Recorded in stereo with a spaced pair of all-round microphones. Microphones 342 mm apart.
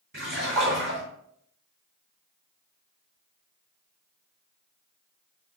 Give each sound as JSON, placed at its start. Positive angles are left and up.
{"t": 0.1, "sound": "a splash", "side_deg": -80, "distance_m": 3.5}